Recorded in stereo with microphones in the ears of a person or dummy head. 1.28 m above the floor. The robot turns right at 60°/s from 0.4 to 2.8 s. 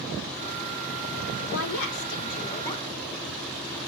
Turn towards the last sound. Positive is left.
turn(degrees=170)